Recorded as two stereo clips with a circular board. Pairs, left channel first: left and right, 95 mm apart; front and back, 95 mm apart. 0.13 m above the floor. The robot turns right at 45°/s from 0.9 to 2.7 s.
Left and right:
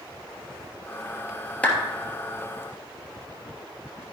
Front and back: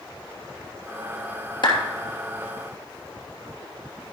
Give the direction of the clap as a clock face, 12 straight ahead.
11 o'clock.